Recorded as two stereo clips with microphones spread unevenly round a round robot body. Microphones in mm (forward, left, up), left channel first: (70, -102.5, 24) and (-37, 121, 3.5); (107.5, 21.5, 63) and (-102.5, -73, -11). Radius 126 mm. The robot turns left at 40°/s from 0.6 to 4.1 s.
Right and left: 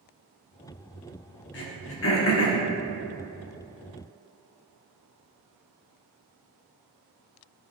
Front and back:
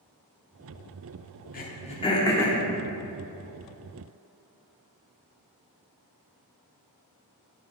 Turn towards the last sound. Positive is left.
turn(degrees=-135)